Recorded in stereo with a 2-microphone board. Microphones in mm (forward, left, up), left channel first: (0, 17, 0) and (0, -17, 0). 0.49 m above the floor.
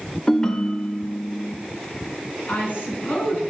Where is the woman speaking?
60° left (ahead or behind), 5.5 m.